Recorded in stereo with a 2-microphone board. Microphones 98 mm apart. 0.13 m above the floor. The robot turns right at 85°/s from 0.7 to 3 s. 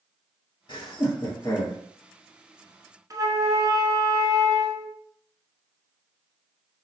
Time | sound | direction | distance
0.7 | laughter | 50° left (ahead or behind) | 1.5 m
3.1 | a flute | 35° right (ahead or behind) | 0.7 m